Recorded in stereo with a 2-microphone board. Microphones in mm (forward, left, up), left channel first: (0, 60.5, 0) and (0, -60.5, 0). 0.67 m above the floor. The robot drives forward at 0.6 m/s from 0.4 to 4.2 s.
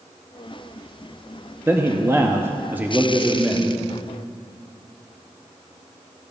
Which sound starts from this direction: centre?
A man speaking, at 1.7 s.